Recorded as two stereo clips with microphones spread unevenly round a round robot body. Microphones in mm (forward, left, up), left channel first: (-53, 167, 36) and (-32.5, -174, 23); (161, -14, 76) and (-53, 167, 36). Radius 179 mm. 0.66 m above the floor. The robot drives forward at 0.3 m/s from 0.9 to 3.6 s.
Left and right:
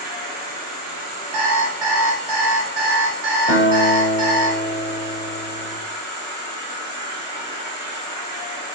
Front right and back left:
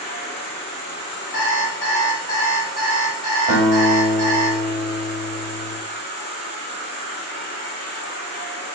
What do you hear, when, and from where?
0.0 s an insect: 105° right, 0.7 m; by 8.8 s 160° right, 1.1 m
1.3 s an alarm clock: 85° right, 1.1 m; by 4.5 s 115° right, 1.2 m
3.5 s a guitar: 170° left, 1.4 m